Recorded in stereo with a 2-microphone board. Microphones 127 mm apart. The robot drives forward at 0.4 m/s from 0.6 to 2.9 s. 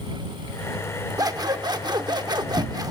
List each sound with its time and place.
1.2 s scissors: 30° right (ahead or behind), 0.8 m